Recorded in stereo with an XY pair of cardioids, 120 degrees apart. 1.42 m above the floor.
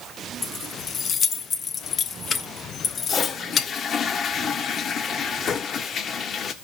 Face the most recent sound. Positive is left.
turn(degrees=50)